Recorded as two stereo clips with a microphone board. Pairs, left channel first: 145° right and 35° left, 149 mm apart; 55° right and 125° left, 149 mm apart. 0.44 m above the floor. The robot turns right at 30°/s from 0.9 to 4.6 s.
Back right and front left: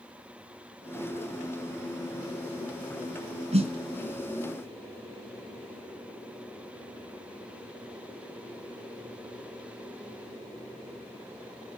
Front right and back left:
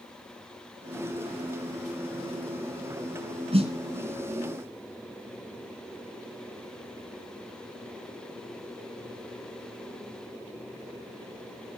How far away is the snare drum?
About 2.5 m.